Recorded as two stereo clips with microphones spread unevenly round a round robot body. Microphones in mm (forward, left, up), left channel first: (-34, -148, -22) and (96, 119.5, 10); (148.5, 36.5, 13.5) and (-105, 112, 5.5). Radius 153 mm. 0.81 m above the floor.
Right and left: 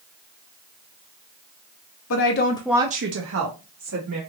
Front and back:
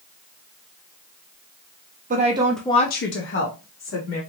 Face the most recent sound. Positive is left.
turn(degrees=25)